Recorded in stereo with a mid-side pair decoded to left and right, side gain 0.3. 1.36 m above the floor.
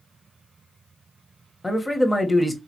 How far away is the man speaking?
About 1.3 m.